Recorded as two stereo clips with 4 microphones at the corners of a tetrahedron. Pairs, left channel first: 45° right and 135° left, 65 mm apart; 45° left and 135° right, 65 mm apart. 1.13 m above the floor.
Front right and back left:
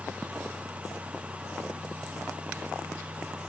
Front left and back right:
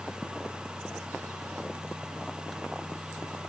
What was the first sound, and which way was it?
Only background noise.